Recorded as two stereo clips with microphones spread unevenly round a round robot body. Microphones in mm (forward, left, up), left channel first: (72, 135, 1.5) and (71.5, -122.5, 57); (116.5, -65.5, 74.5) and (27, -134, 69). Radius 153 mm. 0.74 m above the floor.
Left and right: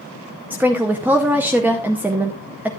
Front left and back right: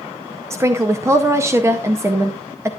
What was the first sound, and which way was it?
A woman speaking, 175° left.